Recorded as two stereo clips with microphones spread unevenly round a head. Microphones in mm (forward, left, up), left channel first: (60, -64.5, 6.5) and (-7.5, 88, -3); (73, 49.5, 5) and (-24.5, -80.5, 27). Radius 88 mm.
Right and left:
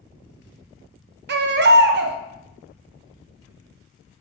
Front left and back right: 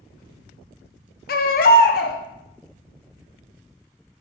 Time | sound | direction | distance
1.3 | a baby crying | 95° left | 0.7 m